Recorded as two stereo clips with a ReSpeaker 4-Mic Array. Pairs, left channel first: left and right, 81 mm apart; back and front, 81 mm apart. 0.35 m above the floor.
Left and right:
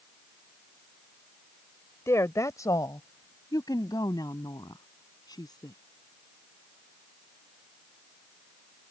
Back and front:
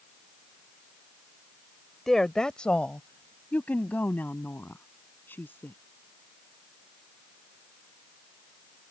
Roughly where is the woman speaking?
Left.